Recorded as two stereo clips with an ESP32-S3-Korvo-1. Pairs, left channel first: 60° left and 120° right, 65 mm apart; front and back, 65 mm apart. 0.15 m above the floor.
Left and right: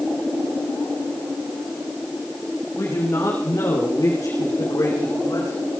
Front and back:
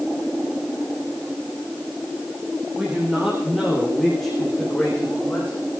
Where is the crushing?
I don't hear crushing.